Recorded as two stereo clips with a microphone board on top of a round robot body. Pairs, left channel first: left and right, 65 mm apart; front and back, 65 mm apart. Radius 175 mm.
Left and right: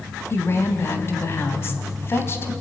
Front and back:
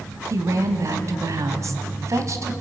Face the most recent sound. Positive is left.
turn(degrees=140)